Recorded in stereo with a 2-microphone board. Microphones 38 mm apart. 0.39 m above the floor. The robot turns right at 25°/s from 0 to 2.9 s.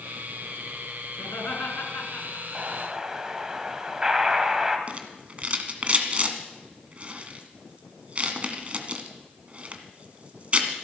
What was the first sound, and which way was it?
Laughter, 75° left (ahead or behind).